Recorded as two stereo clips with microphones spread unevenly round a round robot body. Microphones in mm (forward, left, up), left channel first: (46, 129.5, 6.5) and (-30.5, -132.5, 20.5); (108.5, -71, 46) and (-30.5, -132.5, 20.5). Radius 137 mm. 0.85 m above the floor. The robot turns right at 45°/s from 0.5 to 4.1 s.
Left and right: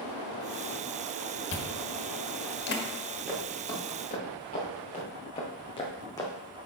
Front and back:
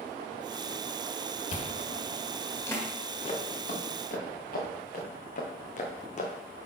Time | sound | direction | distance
1.5 | chewing | 50° left | 1.4 m
3.3 | footsteps | 25° right | 4 m